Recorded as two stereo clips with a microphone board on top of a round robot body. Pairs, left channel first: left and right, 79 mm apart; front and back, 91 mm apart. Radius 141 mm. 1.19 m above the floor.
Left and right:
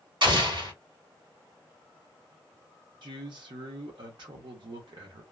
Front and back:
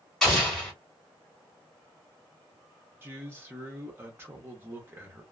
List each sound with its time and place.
0.2 s an explosion: 85° right, 1.7 m
3.0 s a man speaking: 115° right, 0.8 m